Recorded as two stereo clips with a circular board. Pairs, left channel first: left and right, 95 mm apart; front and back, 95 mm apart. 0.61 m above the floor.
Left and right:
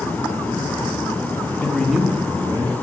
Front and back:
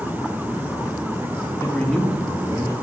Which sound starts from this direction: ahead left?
A man speaking, at 1.6 s.